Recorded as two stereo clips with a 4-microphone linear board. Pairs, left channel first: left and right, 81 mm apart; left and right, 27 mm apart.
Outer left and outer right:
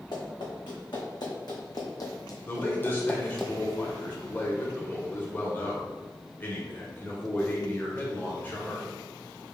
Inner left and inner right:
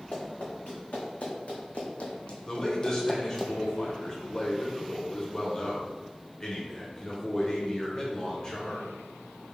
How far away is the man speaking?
About 0.9 m.